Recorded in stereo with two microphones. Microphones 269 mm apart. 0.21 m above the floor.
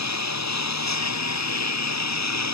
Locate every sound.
0.0 s a lawn mower: 80° left